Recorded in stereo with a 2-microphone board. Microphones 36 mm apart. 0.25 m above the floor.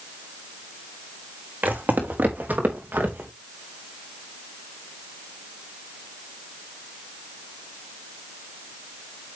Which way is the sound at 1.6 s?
50° right (ahead or behind).